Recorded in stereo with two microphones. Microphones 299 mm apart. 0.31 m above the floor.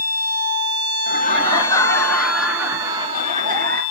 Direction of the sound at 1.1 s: 25° left (ahead or behind).